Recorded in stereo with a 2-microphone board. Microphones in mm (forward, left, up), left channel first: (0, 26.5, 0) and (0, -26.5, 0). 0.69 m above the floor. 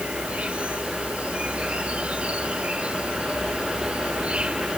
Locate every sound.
0.0 s an insect: 20° right (ahead or behind)